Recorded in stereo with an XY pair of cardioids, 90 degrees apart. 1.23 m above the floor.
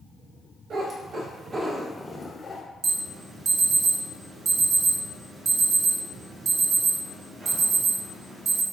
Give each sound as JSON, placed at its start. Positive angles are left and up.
{"t": 0.7, "sound": "a cat meowing", "azimuth_deg": -60, "distance_m": 1.6}
{"t": 2.8, "sound": "an alarm", "azimuth_deg": -40, "distance_m": 1.6}